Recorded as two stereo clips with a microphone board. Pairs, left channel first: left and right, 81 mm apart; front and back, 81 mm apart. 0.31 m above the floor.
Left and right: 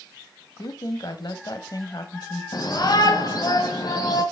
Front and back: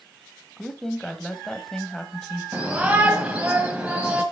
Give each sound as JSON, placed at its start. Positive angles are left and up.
{"t": 0.6, "sound": "a woman speaking", "azimuth_deg": 85, "distance_m": 1.3}
{"t": 2.5, "sound": "a shout", "azimuth_deg": 110, "distance_m": 1.7}